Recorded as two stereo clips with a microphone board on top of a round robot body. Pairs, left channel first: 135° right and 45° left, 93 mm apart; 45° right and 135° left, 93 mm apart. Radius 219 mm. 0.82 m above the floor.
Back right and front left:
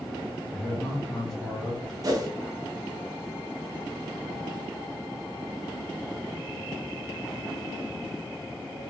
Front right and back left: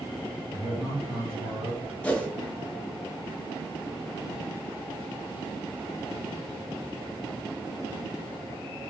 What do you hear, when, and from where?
0.5 s a man speaking: 140° left, 1.7 m
2.0 s a whoosh: 25° left, 1.1 m